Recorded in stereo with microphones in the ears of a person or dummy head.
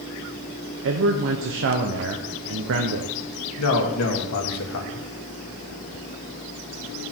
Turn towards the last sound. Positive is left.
turn(degrees=85)